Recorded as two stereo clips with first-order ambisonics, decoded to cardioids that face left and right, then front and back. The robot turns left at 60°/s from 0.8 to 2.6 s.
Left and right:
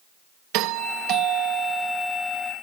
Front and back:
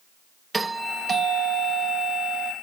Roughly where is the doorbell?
Right.